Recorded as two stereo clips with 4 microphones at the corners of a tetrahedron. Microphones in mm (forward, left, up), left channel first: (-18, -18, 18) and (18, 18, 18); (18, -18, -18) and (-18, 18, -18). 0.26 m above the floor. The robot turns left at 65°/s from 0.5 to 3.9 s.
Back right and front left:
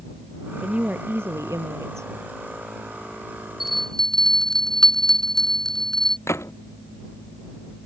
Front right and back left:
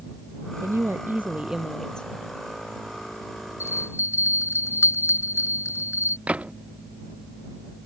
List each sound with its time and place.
0.6 s a woman speaking: 115° left; by 2.1 s 20° left
3.6 s a bell: 35° right; by 6.2 s 55° right
6.3 s a gunshot: 160° right